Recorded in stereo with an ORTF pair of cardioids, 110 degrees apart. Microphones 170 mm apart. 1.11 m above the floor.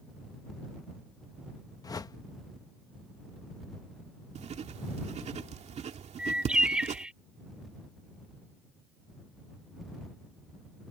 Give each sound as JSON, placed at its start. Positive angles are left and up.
{"t": 1.8, "sound": "a whoosh", "azimuth_deg": 20}
{"t": 4.3, "sound": "writing", "azimuth_deg": -40}
{"t": 6.2, "sound": "a bird", "azimuth_deg": -5}